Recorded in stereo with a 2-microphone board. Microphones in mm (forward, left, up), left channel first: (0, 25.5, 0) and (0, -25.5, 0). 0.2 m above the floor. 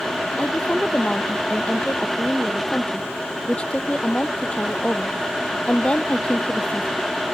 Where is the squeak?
I don't hear a squeak.